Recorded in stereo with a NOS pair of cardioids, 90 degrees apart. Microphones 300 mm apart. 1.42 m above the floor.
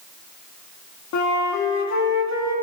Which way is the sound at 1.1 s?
60° left.